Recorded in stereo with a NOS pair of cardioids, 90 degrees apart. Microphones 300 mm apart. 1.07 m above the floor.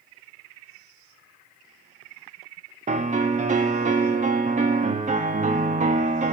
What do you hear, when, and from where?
2.9 s a piano: 25° right, 2.0 m